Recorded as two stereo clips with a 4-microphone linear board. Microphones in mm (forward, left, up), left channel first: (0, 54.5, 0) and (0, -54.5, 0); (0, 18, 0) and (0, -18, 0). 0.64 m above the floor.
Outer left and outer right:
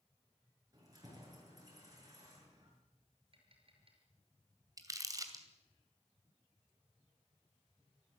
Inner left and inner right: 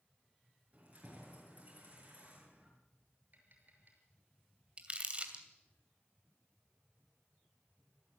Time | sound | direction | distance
0.7 | keys jangling | 35° right (ahead or behind) | 7 m
3.3 | tapping | 50° right (ahead or behind) | 6 m
4.8 | crumpling | 30° right (ahead or behind) | 2.5 m